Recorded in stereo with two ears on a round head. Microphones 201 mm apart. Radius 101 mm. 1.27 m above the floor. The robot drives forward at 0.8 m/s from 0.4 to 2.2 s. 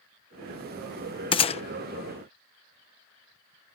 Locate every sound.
1.3 s a gunshot: 25° left (ahead or behind); by 1.6 s 30° left (ahead or behind)